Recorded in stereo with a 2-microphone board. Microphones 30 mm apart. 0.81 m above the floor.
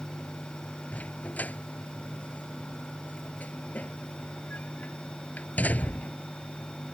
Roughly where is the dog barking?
Left.